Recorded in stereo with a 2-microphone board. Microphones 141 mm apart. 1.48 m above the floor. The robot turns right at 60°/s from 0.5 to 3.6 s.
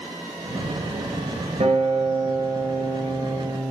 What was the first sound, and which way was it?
A guitar, 65° right.